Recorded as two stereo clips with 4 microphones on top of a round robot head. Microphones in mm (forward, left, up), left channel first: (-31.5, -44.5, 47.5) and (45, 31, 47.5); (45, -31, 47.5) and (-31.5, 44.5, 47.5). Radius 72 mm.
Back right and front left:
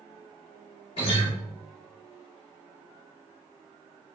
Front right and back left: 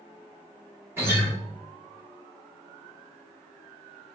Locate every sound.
1.0 s a guitar: 155° right, 1.9 m